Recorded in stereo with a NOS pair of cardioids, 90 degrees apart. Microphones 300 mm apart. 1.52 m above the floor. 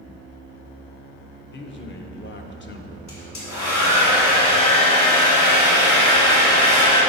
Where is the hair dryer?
65° left, 2.5 m.